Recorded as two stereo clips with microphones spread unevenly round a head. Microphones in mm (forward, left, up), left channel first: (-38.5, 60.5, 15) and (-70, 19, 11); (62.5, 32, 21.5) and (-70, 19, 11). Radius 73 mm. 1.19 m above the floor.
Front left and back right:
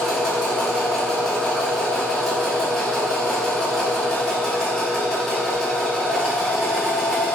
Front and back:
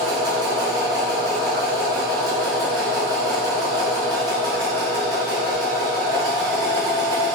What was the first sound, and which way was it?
A machine running, 130° left.